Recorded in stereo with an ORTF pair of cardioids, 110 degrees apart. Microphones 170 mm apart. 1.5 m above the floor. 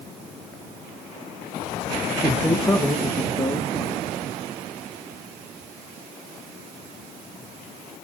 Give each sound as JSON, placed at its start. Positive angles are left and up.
{"t": 2.2, "sound": "a man speaking", "azimuth_deg": 5, "distance_m": 1.2}